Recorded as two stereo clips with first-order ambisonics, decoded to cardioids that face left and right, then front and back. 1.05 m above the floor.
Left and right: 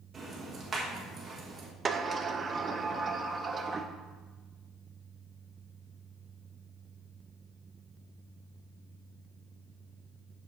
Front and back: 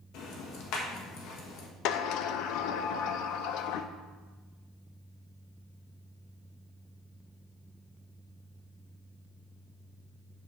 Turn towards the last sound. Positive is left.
turn(degrees=-15)